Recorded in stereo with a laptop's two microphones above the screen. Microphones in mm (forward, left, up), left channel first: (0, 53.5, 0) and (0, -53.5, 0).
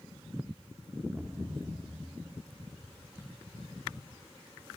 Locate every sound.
1.1 s a thud: 10° right (ahead or behind), 0.9 m